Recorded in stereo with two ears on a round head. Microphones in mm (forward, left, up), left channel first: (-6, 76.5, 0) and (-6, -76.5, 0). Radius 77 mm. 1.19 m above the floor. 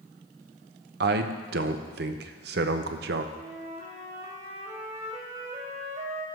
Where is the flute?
35° right (ahead or behind), 1.6 m.